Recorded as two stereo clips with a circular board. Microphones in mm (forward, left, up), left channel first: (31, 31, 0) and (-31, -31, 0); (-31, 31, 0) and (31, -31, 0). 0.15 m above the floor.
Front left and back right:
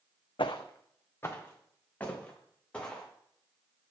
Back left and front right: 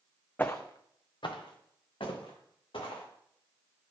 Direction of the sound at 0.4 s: 65° left.